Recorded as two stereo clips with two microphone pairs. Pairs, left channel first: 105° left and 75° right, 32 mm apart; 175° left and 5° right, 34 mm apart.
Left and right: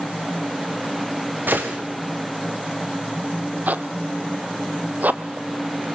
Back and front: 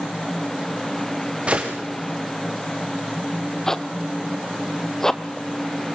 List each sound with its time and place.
1.5 s a gunshot: 60° right, 4.5 m
3.7 s a zipper: 110° right, 1.0 m